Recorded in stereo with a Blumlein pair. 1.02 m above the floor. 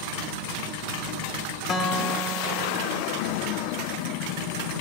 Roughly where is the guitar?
Ahead left.